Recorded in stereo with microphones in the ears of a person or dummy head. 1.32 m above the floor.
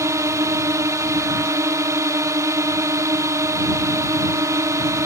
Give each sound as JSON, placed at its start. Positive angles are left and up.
{"t": 0.0, "sound": "a drone", "side_deg": -20}